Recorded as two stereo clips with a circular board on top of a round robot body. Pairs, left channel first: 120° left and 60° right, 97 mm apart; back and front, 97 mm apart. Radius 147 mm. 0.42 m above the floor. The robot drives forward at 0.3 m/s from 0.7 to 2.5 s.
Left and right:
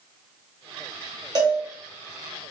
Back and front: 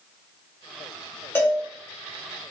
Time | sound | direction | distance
1.4 | a cowbell | 110° right | 1.0 m